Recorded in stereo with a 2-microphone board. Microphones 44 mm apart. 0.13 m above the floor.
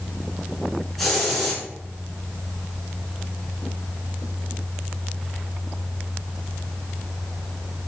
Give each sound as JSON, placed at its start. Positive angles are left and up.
{"t": 1.0, "sound": "a hiss", "side_deg": 5, "distance_m": 1.3}